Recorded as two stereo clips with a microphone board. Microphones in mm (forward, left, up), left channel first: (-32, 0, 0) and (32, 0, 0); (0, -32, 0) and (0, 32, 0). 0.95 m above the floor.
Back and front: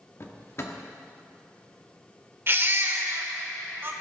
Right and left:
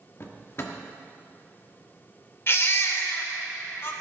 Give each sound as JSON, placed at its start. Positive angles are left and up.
{"t": 0.2, "sound": "a drawer", "azimuth_deg": -135, "distance_m": 1.1}
{"t": 2.5, "sound": "a baby crying", "azimuth_deg": -45, "distance_m": 1.1}